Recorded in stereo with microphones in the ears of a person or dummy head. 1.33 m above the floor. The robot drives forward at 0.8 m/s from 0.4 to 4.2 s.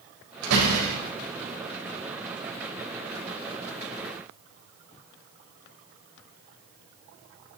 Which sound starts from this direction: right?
A door slam, at 0.4 s.